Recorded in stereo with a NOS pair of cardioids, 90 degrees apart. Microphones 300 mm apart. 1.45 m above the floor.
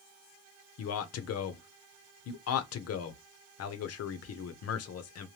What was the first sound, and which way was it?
A man speaking, 55° left.